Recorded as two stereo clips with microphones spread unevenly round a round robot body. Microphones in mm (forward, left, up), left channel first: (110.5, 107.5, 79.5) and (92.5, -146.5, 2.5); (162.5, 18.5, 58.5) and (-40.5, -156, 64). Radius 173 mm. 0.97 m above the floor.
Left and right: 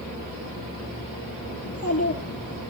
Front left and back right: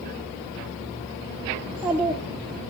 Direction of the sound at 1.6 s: 135° left.